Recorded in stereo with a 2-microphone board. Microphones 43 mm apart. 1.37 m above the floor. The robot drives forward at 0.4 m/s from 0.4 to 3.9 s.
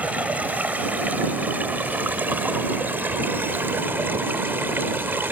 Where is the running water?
35° right (ahead or behind); by 5.3 s 55° right (ahead or behind).